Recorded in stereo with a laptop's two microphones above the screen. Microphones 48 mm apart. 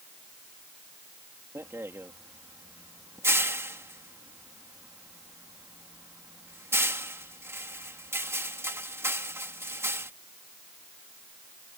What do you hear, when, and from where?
1.6 s a rattle: 65° right (ahead or behind)